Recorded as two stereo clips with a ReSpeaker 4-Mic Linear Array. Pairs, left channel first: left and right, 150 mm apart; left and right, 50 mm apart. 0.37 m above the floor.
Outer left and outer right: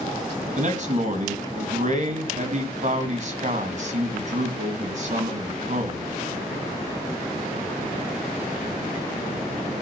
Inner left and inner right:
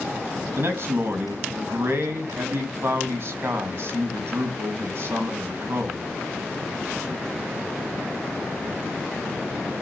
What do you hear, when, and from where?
0.6 s a man speaking: 55° right (ahead or behind), 3.5 m